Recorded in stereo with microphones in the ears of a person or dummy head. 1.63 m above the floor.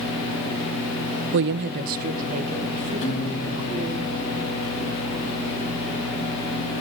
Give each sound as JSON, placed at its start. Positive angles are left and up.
{"t": 1.3, "sound": "a woman speaking", "side_deg": -65, "distance_m": 0.7}
{"t": 3.0, "sound": "a guitar", "side_deg": 35, "distance_m": 3.5}